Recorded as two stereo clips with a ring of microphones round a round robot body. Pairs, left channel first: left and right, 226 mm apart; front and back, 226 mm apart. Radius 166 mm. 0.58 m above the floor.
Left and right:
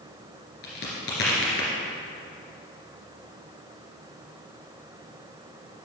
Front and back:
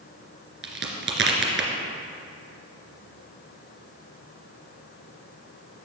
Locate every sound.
0.6 s a crack: 150° left, 2.5 m